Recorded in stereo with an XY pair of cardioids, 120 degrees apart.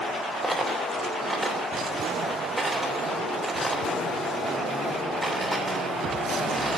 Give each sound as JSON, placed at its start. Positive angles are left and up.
{"t": 0.4, "sound": "a dropped coin", "azimuth_deg": -10, "distance_m": 3.0}